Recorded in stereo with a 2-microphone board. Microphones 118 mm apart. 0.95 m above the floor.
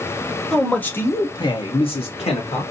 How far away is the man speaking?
About 1.2 m.